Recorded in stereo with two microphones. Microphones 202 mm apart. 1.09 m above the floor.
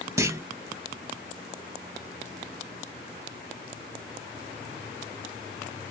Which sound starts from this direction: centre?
A clunk, at 0.2 s.